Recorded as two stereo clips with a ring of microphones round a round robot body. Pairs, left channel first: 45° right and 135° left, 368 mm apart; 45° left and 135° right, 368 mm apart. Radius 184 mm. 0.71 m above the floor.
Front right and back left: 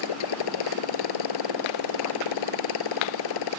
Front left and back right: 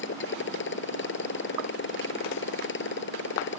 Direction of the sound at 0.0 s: 15° right.